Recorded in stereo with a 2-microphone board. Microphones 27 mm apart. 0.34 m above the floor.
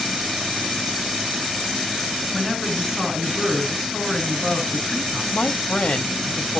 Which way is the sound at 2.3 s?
5° right (ahead or behind).